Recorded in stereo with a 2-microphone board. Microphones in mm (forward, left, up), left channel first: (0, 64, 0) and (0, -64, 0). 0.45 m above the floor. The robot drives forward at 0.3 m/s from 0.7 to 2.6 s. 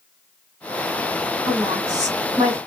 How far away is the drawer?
I don't hear a drawer.